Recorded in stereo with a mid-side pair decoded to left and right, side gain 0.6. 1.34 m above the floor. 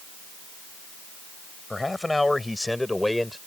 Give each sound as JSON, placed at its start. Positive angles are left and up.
{"t": 1.7, "sound": "a man speaking", "azimuth_deg": 10}